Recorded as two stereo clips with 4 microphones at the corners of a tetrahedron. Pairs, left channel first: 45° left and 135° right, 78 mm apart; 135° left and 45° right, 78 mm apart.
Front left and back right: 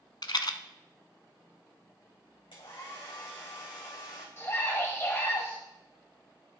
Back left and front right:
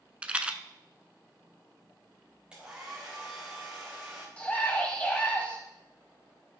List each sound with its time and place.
0.2 s a rattle: 30° left, 0.7 m
2.5 s a hair dryer: 30° left, 3.5 m
4.4 s a scream: 75° left, 1.4 m